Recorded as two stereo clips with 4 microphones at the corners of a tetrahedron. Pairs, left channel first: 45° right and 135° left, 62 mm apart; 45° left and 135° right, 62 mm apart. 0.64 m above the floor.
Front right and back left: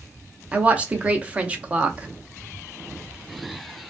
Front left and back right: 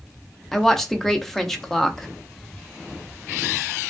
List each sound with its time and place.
0.5 s a woman speaking: 125° left, 0.5 m